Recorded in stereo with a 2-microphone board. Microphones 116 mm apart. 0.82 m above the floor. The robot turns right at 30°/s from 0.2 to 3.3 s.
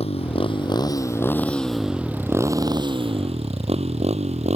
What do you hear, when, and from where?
0.0 s a motorcycle: 60° left (ahead or behind); by 4.6 s 75° right (ahead or behind)